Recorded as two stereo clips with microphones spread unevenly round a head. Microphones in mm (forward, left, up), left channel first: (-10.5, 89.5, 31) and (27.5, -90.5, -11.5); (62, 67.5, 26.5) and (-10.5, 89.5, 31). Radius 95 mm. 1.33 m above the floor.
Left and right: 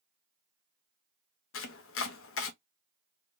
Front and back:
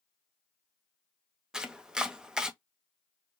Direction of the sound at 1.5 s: 80° left.